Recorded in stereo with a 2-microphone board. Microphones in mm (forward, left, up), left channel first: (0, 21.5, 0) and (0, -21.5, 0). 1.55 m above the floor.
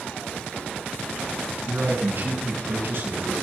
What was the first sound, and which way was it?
A man speaking, 65° right (ahead or behind).